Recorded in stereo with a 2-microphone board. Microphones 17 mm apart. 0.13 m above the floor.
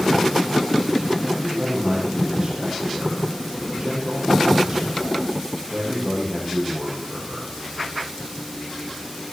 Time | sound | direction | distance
1.2 | a man speaking | 40° right (ahead or behind) | 6.5 m